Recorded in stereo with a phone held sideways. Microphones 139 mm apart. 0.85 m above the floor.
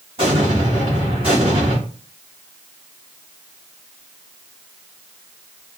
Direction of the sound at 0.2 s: 45° right (ahead or behind).